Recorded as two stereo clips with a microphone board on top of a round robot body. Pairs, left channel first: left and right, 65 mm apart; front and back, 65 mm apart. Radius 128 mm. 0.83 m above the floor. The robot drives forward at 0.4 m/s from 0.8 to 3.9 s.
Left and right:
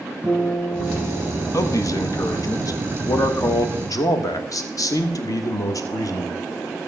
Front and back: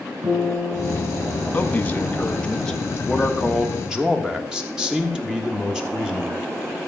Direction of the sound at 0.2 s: 155° right.